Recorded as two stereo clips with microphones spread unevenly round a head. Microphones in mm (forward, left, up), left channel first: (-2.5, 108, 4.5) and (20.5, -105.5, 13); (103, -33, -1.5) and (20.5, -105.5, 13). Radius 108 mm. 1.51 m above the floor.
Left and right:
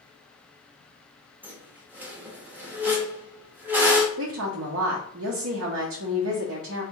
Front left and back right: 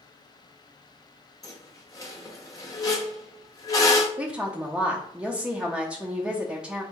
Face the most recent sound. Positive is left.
turn(degrees=-60)